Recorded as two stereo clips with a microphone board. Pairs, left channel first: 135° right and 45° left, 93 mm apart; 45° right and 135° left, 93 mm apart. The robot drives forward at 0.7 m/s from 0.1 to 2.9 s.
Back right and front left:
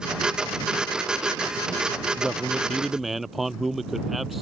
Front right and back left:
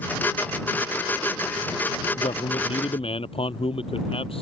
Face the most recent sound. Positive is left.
turn(degrees=-40)